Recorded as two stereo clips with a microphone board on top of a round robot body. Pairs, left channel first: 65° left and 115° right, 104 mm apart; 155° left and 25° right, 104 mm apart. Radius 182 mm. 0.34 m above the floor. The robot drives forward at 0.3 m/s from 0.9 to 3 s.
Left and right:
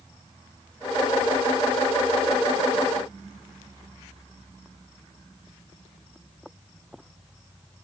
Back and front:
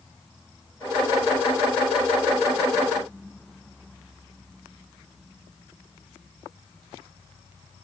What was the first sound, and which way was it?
Only background noise.